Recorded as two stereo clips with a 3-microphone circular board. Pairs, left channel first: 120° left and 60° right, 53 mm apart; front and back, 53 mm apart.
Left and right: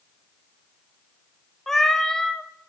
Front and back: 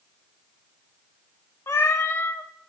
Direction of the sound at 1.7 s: 35° left.